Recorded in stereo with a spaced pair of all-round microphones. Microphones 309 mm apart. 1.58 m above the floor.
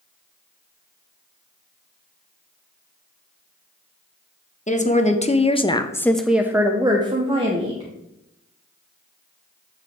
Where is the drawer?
I don't hear a drawer.